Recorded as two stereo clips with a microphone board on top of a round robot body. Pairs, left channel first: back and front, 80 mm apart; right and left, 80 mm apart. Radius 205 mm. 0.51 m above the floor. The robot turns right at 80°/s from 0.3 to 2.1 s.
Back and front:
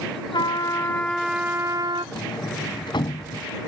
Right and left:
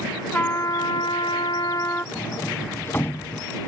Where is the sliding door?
155° right.